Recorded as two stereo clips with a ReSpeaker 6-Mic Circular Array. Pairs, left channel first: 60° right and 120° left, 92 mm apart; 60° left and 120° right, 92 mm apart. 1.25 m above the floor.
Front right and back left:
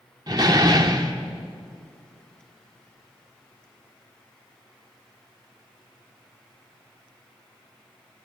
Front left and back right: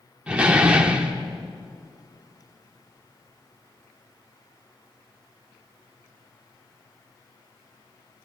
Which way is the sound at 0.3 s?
165° left.